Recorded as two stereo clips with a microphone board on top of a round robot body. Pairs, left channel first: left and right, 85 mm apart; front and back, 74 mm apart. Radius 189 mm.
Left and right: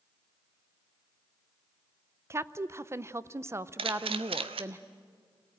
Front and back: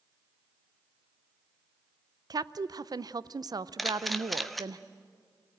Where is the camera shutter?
90° right, 0.6 m.